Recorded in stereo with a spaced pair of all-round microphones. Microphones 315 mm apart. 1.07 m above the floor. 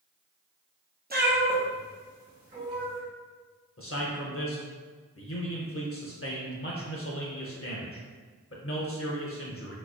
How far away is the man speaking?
About 0.5 m.